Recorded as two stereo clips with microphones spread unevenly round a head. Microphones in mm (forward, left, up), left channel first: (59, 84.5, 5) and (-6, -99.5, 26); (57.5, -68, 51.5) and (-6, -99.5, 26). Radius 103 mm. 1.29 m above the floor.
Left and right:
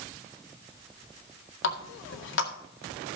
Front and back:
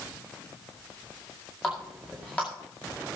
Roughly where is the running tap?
Left.